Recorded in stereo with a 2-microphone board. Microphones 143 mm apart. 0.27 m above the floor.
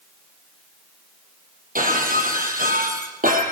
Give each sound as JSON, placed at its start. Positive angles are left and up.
{"t": 1.8, "sound": "breaking glass", "side_deg": -75, "distance_m": 4.5}